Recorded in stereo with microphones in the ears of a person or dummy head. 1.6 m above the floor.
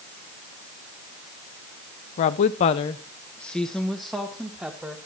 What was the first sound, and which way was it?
A woman speaking, 35° left (ahead or behind).